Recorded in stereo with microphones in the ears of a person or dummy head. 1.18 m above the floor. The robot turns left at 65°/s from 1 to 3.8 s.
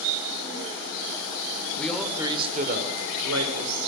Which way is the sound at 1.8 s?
10° left.